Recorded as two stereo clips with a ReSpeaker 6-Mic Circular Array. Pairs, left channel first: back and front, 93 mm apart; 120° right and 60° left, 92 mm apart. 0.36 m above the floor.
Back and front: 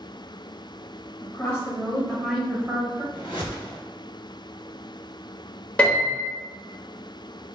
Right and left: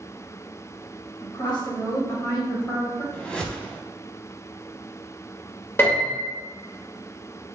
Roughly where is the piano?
Behind right.